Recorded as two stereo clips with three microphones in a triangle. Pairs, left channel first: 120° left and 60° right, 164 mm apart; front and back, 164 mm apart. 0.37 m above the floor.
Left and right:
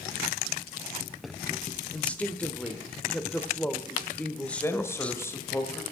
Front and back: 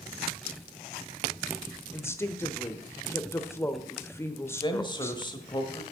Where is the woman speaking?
50° left, 0.9 m.